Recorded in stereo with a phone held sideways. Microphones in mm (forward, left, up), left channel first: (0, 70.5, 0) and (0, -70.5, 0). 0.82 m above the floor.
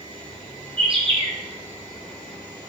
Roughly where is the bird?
Right.